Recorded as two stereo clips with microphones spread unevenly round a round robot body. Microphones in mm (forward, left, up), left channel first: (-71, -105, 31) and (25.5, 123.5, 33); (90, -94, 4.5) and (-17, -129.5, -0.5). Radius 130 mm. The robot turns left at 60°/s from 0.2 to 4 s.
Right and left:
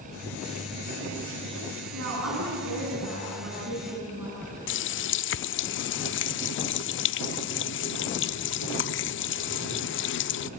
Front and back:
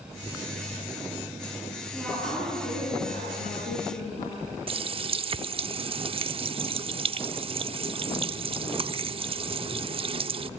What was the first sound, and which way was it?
A woman speaking, 110° left.